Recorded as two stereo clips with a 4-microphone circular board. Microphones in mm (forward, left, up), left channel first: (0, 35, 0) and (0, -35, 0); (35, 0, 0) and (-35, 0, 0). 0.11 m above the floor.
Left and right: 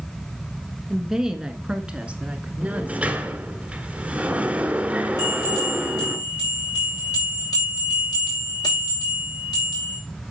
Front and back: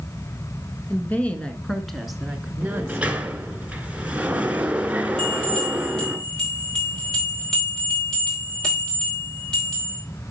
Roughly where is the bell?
Left.